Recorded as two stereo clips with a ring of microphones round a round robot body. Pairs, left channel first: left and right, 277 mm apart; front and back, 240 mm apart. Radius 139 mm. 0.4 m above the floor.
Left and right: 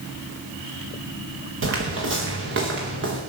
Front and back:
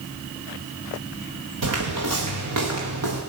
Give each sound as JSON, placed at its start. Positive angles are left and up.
{"t": 1.6, "sound": "footsteps", "azimuth_deg": -140, "distance_m": 4.0}